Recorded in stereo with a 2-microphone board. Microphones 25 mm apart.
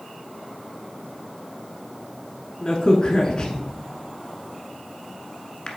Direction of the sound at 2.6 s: 30° left (ahead or behind).